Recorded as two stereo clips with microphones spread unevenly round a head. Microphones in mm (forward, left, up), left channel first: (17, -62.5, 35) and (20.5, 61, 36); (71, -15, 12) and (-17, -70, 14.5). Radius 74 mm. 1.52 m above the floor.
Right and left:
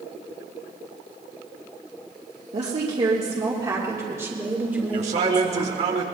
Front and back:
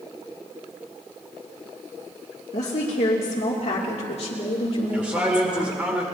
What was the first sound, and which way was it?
A woman speaking, 50° left.